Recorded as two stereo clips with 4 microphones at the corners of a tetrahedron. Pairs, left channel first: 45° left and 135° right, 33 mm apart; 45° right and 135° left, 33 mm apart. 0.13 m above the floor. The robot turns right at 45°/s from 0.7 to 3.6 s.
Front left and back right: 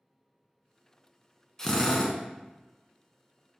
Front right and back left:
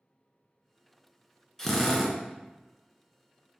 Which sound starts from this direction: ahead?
A drill, at 1.6 s.